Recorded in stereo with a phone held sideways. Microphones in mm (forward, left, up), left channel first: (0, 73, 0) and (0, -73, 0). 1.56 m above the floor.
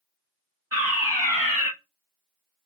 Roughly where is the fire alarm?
Centre.